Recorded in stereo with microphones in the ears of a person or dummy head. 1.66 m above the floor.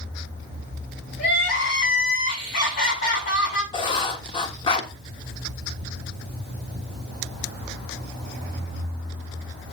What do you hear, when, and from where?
1.2 s crying: 65° left (ahead or behind), 6.5 m
3.7 s writing: 35° left (ahead or behind), 1.4 m